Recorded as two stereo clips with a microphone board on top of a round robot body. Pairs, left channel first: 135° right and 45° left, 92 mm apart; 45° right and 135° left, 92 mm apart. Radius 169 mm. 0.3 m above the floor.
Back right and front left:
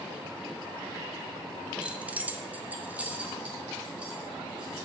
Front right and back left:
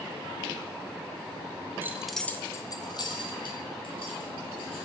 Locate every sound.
1.8 s keys jangling: 110° left, 0.7 m; by 4.9 s 35° right, 2 m